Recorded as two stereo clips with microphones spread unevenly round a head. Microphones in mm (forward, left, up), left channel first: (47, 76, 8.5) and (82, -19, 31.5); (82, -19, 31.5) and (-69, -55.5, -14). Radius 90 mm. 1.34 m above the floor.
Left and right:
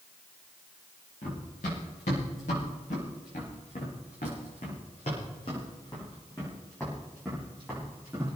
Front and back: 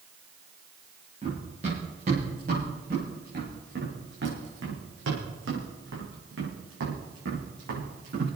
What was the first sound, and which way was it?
Running footsteps, 130° left.